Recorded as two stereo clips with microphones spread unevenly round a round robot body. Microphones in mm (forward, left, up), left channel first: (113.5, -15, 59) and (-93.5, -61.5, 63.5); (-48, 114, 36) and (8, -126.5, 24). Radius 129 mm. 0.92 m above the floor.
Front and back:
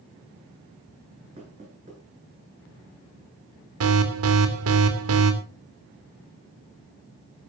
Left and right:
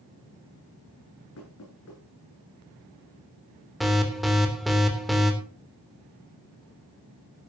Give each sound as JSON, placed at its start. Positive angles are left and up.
{"t": 1.4, "sound": "knocking", "azimuth_deg": 130, "distance_m": 10.0}
{"t": 3.8, "sound": "an alarm", "azimuth_deg": -165, "distance_m": 3.0}